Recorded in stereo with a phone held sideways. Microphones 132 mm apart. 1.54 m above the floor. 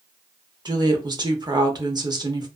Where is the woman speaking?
30° right (ahead or behind), 0.6 m.